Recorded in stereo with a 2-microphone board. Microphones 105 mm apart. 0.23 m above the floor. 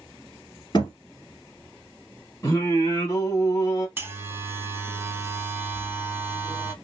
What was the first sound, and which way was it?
A thud, 45° left (ahead or behind).